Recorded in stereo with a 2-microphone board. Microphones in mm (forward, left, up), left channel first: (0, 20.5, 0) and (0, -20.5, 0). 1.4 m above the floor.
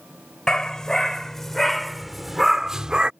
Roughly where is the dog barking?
Centre.